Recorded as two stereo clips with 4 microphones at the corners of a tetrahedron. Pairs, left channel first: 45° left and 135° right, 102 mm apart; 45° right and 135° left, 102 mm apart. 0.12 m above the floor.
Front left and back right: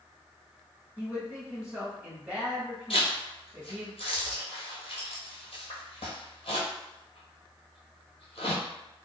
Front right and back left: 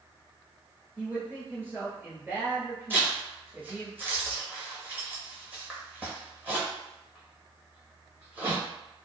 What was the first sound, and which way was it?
A man speaking, 165° left.